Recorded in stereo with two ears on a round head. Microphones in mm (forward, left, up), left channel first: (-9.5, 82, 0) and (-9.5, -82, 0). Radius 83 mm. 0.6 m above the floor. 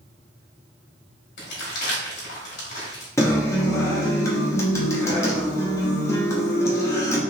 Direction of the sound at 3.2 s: 15° left (ahead or behind).